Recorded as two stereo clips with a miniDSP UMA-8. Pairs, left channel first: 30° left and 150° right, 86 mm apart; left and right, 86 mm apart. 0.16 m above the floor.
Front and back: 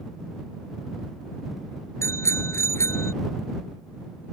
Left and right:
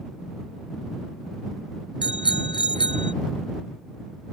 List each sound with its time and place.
2.0 s a bicycle bell: 85° left